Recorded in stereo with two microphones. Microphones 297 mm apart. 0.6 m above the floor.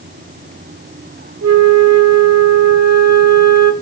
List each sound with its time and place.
1.4 s a flute: 60° right (ahead or behind), 0.7 m